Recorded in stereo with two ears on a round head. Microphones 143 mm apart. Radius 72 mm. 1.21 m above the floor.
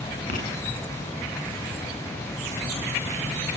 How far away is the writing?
About 9 m.